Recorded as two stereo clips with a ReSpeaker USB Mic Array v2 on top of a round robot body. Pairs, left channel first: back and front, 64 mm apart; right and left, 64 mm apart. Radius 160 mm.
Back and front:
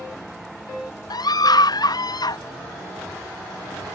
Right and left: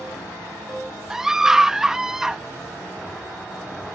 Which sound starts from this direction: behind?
A scream, at 1.1 s.